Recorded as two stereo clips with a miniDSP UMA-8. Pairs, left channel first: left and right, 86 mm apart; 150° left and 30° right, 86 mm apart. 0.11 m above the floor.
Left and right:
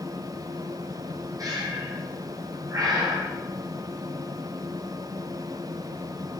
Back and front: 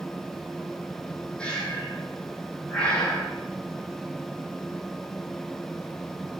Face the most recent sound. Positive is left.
turn(degrees=-130)